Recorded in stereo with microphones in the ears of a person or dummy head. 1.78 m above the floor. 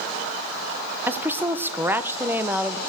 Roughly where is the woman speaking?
Centre.